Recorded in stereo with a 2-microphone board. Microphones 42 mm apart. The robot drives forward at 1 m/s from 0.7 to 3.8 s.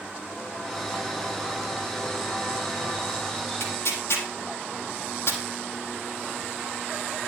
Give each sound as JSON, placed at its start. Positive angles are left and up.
{"t": 3.6, "sound": "tearing paper", "side_deg": 70, "distance_m": 4.0}